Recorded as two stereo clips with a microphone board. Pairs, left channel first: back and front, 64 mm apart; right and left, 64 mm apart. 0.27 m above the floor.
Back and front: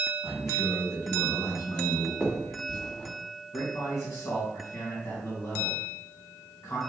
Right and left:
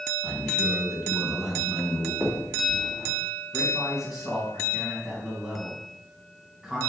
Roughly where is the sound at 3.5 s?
Behind.